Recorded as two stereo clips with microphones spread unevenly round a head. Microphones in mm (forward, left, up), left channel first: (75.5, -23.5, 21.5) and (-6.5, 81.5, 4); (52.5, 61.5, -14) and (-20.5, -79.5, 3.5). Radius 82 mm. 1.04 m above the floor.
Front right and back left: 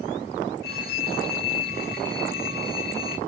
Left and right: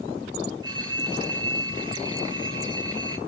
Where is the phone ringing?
55° right, 4.5 m.